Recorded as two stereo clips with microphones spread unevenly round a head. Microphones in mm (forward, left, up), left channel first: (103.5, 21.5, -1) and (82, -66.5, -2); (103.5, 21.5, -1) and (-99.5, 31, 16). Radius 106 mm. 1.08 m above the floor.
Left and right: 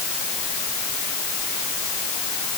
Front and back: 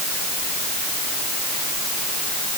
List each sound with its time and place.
Only background noise.